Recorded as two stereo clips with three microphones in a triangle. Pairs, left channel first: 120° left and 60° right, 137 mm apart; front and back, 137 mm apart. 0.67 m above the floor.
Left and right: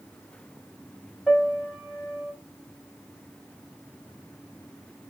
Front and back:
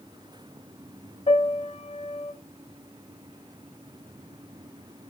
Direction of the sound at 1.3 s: 30° left.